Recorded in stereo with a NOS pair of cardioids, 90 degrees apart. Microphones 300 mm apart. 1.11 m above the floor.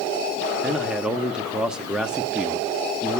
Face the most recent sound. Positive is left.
turn(degrees=-5)